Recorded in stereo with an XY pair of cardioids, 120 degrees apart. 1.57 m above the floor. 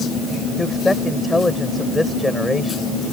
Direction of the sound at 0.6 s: 10° left.